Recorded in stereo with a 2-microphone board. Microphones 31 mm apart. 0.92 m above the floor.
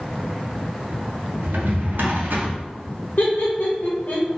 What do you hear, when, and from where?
1.4 s a drawer: 85° right, 0.9 m
3.2 s laughter: 65° left (ahead or behind), 0.6 m